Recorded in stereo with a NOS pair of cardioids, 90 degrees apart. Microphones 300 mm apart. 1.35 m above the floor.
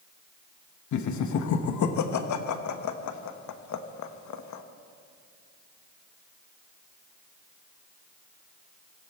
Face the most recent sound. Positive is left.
turn(degrees=65)